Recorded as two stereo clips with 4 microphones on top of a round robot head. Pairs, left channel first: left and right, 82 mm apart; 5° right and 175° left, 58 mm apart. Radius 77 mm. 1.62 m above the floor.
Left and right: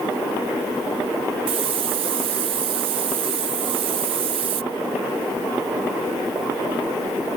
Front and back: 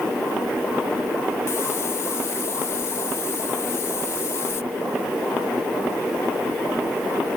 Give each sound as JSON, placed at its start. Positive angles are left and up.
{"t": 1.5, "sound": "a hiss", "azimuth_deg": -65}